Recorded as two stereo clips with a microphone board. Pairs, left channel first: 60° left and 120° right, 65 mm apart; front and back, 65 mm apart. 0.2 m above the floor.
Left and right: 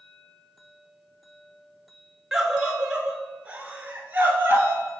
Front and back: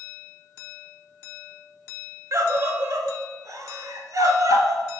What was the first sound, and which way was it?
A scream, 160° left.